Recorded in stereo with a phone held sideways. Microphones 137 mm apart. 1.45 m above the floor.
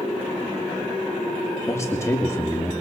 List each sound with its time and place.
1.7 s a man speaking: 20° left (ahead or behind), 2.0 m